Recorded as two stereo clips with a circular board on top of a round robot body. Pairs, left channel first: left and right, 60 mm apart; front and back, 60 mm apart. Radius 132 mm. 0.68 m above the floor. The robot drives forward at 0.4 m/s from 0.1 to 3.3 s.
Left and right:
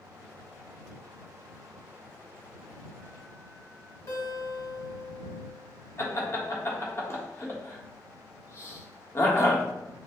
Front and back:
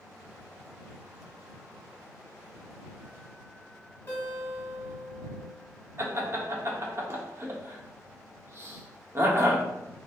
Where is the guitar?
55° left, 2 m.